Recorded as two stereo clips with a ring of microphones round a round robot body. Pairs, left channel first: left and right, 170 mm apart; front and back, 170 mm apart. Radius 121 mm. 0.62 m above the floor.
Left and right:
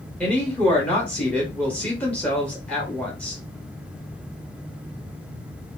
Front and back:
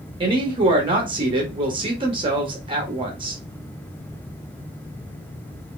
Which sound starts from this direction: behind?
A woman speaking, at 0.2 s.